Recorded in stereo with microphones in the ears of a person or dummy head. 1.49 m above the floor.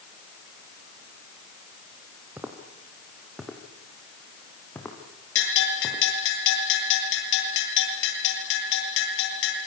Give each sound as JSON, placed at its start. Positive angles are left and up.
{"t": 2.4, "sound": "footsteps", "side_deg": -10, "distance_m": 4.0}
{"t": 5.3, "sound": "a bell", "side_deg": 70, "distance_m": 9.5}